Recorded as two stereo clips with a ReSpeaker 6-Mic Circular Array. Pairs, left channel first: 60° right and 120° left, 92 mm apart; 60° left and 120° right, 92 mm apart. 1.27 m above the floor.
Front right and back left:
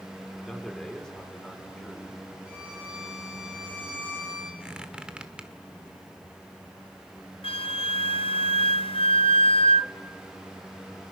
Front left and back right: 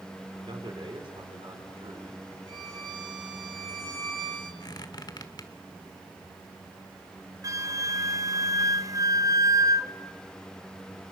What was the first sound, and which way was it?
A man speaking, 150° right.